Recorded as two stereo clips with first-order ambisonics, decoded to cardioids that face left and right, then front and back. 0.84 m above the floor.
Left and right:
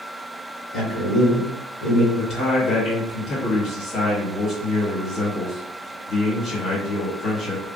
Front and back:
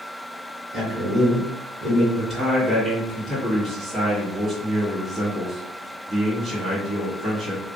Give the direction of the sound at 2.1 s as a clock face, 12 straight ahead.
8 o'clock.